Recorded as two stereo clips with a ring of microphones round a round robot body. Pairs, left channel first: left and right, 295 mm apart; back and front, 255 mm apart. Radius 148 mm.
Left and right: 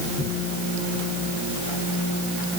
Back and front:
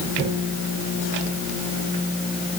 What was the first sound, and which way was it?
Only background noise.